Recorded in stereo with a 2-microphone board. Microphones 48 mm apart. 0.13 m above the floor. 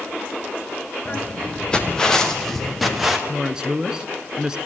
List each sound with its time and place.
1.1 s footsteps: 25° left (ahead or behind), 4.5 m; by 3.2 s 10° right (ahead or behind), 3.5 m
3.3 s a woman speaking: 15° right (ahead or behind), 1.3 m